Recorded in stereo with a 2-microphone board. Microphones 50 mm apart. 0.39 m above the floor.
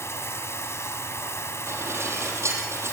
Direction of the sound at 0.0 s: 60° left (ahead or behind).